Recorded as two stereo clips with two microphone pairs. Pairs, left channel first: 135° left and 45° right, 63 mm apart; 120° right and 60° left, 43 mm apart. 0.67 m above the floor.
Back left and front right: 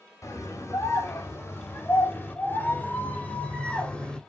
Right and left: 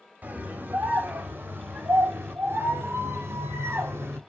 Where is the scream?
105° left, 3.5 m; by 4.2 s 65° left, 3 m.